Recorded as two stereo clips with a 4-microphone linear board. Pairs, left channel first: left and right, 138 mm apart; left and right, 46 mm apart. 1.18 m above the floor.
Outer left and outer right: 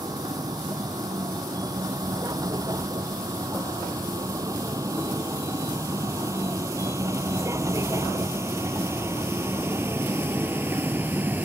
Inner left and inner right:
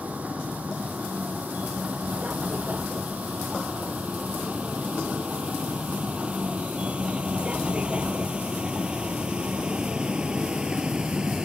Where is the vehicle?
30° right (ahead or behind); by 11.4 s 15° right (ahead or behind).